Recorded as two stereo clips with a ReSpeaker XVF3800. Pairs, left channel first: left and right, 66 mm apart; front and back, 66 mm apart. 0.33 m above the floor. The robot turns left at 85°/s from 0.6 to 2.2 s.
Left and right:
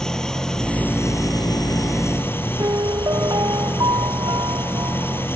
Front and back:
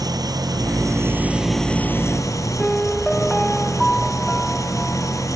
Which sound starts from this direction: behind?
An engine running, at 0.0 s.